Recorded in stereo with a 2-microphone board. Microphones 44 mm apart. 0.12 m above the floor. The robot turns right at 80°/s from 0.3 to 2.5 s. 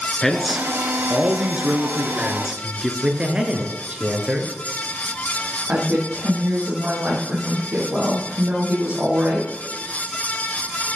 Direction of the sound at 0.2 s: 165° left.